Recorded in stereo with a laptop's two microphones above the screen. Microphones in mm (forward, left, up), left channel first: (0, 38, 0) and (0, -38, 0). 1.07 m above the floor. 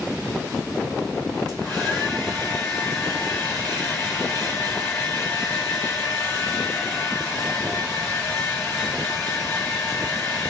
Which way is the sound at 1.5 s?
15° left (ahead or behind).